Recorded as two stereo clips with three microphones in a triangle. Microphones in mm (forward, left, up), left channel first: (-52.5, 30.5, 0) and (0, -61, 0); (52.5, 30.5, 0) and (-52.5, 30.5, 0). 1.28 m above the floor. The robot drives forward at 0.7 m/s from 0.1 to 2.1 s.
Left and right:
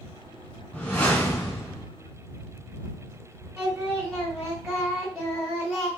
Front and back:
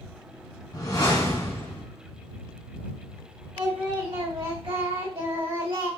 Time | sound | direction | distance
0.7 | a whoosh | 45° left | 1.9 m
3.6 | singing | 155° right | 2 m